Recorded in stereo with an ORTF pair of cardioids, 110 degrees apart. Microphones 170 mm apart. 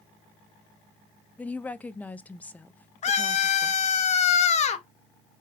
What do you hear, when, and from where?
1.4 s a woman speaking: 10° left, 0.5 m
3.0 s a scream: 40° left, 1.0 m